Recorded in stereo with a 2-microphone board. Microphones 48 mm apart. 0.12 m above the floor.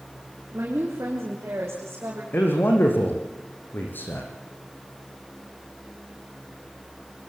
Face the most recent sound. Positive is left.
turn(degrees=45)  # may be behind; listen again after turning